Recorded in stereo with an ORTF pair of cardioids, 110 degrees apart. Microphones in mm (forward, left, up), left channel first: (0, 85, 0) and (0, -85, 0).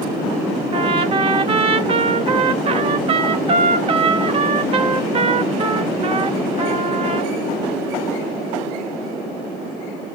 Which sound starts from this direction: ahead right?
A trumpet, at 0.7 s.